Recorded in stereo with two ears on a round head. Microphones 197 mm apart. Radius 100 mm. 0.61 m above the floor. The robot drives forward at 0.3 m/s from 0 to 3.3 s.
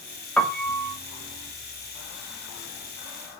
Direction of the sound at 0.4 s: 5° left (ahead or behind).